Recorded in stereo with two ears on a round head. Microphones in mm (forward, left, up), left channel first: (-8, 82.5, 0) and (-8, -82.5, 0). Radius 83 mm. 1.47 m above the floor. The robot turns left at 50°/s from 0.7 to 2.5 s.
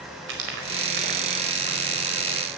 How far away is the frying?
About 4.5 m.